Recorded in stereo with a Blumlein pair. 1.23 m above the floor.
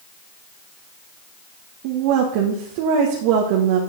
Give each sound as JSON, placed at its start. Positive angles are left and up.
{"t": 1.8, "sound": "a woman speaking", "azimuth_deg": -45, "distance_m": 1.7}